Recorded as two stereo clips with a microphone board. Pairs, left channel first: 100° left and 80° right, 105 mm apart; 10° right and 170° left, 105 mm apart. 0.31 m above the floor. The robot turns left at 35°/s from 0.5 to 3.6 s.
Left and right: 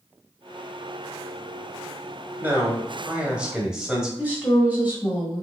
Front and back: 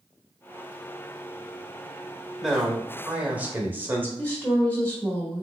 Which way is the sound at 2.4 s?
110° right.